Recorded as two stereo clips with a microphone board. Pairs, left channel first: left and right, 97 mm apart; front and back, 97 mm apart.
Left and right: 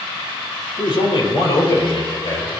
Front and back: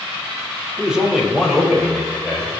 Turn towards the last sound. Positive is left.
turn(degrees=95)